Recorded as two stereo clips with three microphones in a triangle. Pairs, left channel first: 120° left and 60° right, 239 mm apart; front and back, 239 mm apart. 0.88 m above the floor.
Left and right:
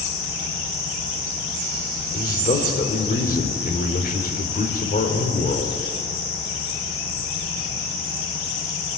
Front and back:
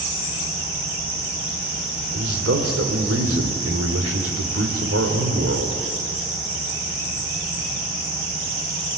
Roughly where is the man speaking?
Behind.